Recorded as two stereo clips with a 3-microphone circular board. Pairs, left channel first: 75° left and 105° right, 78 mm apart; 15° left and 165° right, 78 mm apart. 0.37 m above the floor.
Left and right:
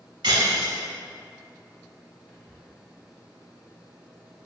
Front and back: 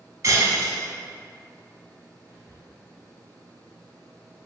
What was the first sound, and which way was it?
Breaking glass, 120° right.